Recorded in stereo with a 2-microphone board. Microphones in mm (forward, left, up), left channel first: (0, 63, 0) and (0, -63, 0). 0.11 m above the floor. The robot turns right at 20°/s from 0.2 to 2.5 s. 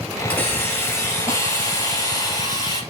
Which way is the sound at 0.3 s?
25° left.